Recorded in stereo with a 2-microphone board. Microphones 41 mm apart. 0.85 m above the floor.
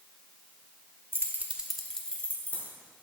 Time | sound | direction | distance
1.1 | keys jangling | 70° right (ahead or behind) | 0.7 m